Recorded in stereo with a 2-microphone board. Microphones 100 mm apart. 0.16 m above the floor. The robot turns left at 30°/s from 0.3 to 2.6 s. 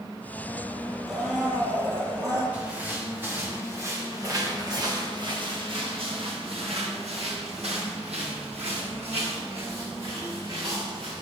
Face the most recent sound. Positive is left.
turn(degrees=-65)  # may be behind; listen again after turning